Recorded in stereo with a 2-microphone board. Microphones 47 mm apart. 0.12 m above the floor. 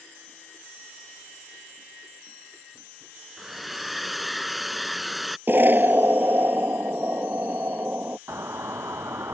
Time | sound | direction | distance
3.4 | a hair dryer | 5° right (ahead or behind) | ?
5.5 | an explosion | 45° right (ahead or behind) | ?
8.3 | a doorbell | 70° right (ahead or behind) | ?